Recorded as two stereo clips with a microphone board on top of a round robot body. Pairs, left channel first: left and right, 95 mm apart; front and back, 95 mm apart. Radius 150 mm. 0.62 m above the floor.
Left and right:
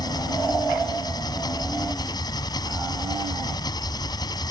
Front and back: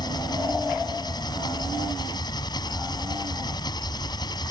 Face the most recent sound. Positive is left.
turn(degrees=45)